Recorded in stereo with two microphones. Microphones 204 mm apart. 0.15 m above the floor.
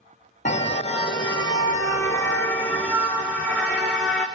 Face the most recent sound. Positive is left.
turn(degrees=0)  # may be behind; listen again after turning